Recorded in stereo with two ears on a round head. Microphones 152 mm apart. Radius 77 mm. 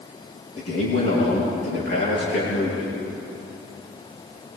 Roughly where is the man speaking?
Left.